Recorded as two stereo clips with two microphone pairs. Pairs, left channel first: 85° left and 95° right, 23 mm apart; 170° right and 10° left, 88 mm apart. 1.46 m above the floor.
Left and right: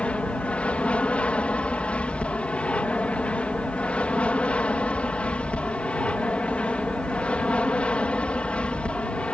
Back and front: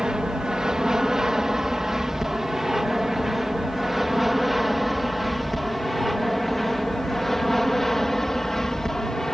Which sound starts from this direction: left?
An aircraft, at 0.0 s.